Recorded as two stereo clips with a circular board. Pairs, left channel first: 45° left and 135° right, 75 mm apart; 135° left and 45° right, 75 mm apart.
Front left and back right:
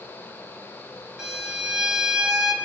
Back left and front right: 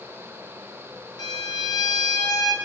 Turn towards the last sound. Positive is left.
turn(degrees=145)